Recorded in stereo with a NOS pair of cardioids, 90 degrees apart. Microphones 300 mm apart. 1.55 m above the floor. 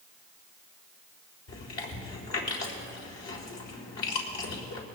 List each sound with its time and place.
1.5 s chewing: 65° left, 4 m